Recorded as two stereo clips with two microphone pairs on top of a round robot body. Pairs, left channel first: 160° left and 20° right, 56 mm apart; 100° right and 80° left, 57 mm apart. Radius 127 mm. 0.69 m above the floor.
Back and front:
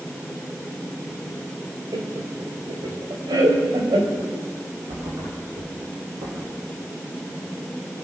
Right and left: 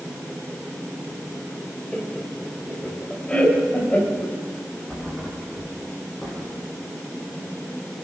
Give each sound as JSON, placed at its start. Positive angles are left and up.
{"t": 1.9, "sound": "laughter", "azimuth_deg": -20, "distance_m": 4.0}
{"t": 4.9, "sound": "a thud", "azimuth_deg": -20, "distance_m": 6.0}